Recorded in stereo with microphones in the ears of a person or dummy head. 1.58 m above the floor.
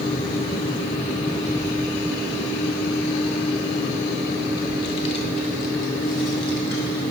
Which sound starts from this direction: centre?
A child speaking, at 1.4 s.